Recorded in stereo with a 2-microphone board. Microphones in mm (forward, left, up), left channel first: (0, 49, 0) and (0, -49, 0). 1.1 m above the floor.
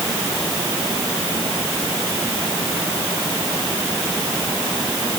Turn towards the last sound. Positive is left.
No sound to turn to.